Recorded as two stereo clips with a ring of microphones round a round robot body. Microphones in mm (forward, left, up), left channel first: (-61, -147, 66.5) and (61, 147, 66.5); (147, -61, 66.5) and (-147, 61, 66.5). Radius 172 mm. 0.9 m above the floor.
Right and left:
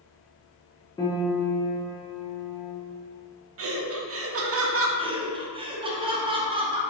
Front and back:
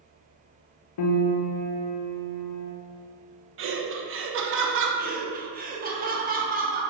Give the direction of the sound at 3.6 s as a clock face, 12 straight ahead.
8 o'clock.